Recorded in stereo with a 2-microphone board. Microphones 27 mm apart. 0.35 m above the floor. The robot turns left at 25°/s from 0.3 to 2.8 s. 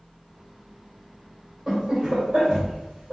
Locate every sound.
1.7 s laughter: 25° right (ahead or behind), 1.6 m; by 3.1 s 35° right (ahead or behind), 1.6 m